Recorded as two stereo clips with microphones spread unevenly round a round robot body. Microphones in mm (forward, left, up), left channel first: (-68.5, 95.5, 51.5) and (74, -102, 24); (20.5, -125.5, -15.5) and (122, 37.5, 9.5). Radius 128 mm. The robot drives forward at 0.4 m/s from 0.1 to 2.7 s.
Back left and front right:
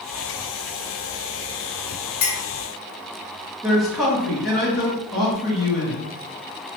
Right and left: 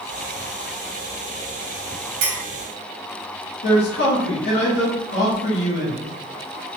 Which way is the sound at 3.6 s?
140° right.